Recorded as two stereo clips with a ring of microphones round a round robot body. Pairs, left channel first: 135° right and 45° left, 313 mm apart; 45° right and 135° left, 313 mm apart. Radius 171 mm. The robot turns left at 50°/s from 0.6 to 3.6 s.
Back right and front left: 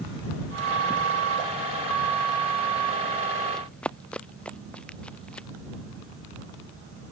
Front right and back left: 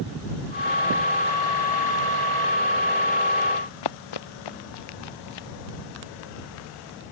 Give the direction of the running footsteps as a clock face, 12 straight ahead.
2 o'clock.